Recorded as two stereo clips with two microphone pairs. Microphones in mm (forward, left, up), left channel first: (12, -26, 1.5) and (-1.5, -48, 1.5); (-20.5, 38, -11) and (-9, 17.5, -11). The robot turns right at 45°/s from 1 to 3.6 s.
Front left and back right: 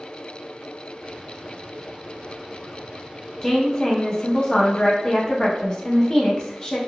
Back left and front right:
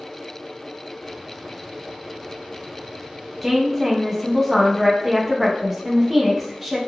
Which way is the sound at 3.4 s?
Straight ahead.